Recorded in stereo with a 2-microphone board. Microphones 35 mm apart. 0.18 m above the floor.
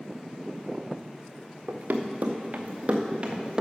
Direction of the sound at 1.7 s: 80° right.